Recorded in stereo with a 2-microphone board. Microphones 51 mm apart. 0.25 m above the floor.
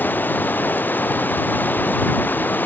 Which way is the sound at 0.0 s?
35° left (ahead or behind).